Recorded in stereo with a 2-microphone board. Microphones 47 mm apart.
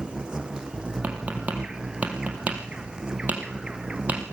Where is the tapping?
30° right (ahead or behind), 4 m.